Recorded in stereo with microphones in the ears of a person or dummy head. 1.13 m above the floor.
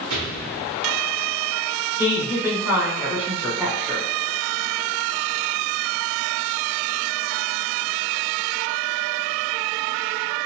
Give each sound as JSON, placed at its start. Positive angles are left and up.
{"t": 0.1, "sound": "an explosion", "side_deg": -75, "distance_m": 1.6}
{"t": 2.0, "sound": "a woman speaking", "side_deg": -10, "distance_m": 1.1}